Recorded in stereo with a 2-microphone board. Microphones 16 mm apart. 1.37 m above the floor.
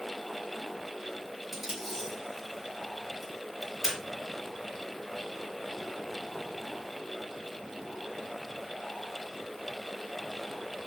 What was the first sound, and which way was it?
Tape being pulled, 20° right (ahead or behind).